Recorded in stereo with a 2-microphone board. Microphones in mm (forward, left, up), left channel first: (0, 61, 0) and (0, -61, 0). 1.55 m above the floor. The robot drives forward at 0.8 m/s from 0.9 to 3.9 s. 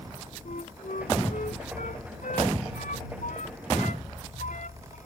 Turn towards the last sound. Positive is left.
turn(degrees=75)  # may be behind; listen again after turning